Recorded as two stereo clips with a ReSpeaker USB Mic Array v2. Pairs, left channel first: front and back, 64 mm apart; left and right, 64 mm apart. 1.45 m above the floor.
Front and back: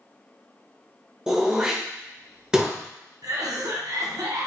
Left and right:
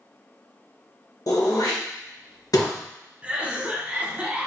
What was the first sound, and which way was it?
Throat clearing, 105° left.